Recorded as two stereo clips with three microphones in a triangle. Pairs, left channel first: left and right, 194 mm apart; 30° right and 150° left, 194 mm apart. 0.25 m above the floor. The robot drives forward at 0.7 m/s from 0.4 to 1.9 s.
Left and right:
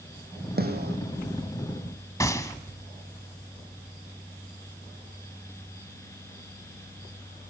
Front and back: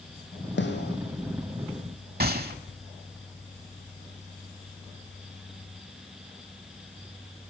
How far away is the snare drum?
About 2 m.